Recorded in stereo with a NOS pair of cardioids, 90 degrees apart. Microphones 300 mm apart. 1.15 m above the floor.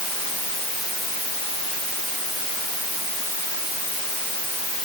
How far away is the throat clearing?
I don't hear throat clearing.